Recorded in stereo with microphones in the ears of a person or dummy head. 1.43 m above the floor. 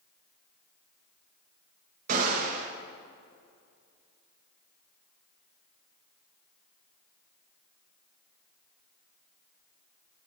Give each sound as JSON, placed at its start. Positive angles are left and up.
{"t": 2.1, "sound": "a gunshot", "side_deg": -50, "distance_m": 1.8}